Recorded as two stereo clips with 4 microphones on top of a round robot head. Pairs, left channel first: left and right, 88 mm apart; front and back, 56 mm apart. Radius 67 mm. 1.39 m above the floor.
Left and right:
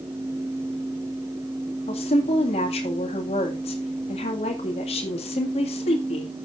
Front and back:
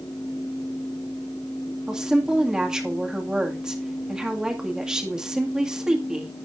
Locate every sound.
1.9 s a woman speaking: 105° left, 2 m